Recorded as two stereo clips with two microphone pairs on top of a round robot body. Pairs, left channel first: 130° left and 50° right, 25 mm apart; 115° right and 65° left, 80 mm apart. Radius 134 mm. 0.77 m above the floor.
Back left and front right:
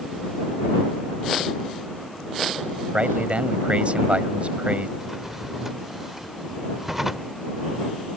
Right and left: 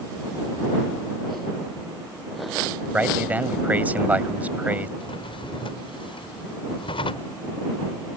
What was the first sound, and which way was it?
A man speaking, 5° right.